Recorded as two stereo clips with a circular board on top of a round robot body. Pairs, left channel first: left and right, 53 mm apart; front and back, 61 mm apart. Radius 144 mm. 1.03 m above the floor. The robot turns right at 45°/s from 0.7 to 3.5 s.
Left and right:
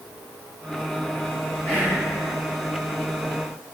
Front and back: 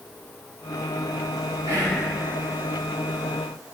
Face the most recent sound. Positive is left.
turn(degrees=-120)